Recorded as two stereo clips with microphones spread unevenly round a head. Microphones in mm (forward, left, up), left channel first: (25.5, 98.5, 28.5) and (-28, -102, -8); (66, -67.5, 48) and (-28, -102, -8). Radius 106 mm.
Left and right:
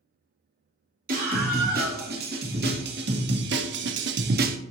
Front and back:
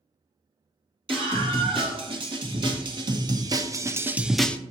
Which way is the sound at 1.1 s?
150° right.